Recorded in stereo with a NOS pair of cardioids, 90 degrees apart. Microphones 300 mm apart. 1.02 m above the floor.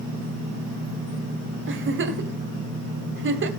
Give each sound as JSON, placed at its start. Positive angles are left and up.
{"t": 1.7, "sound": "a giggle", "azimuth_deg": -40, "distance_m": 1.9}